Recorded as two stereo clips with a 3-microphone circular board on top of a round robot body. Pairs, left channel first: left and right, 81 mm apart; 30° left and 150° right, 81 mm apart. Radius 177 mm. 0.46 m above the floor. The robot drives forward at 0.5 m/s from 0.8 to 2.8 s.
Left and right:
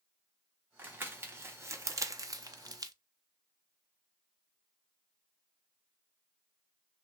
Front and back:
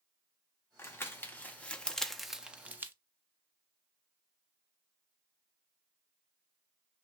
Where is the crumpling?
30° right, 1.3 m; by 2.9 s 90° right, 0.8 m.